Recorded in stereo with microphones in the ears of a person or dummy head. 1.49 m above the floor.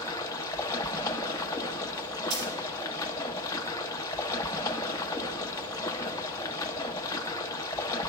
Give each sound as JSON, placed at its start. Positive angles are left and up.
{"t": 0.0, "sound": "running water", "side_deg": 20, "distance_m": 0.8}
{"t": 2.3, "sound": "a dropped coin", "side_deg": -55, "distance_m": 3.0}